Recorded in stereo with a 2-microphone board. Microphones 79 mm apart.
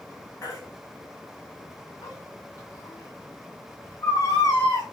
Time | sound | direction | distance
0.4 | a baby crying | 40° left (ahead or behind) | 1.4 m